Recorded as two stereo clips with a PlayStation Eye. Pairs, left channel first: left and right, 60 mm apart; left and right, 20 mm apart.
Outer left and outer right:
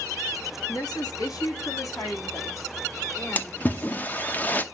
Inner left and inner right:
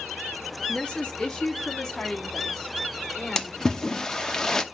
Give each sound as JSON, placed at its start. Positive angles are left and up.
{"t": 0.7, "sound": "a woman speaking", "side_deg": 85, "distance_m": 1.7}
{"t": 3.4, "sound": "a splash", "side_deg": 25, "distance_m": 0.7}